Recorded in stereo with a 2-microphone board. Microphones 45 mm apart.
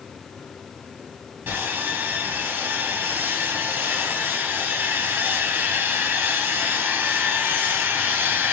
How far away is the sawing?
About 3 m.